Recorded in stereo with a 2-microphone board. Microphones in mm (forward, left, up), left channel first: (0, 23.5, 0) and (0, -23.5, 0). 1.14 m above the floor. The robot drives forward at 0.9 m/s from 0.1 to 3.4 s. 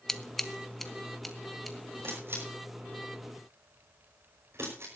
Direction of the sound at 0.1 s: 10° left (ahead or behind).